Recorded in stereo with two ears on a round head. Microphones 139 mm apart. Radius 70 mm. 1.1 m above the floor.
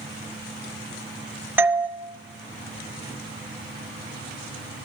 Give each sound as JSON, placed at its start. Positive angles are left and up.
{"t": 1.6, "sound": "a doorbell", "side_deg": -15, "distance_m": 1.3}